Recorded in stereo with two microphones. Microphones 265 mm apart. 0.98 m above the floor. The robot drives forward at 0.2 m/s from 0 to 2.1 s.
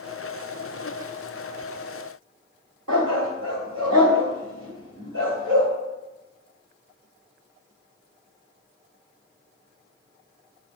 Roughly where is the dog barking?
Right.